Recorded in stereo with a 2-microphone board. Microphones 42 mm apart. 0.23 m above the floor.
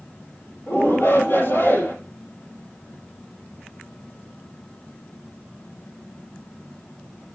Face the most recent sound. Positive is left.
turn(degrees=50)  # may be behind; listen again after turning